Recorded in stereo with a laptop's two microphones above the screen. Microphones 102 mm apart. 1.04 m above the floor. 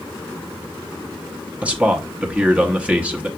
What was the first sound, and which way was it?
A man speaking, 15° right (ahead or behind).